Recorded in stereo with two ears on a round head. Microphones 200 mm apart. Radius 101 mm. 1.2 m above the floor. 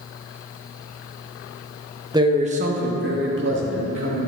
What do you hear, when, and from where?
2.1 s a man speaking: 15° right (ahead or behind), 0.9 m; by 4.3 s 60° right (ahead or behind), 2.5 m